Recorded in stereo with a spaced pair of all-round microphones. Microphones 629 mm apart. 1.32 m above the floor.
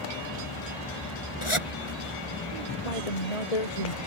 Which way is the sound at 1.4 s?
50° left (ahead or behind).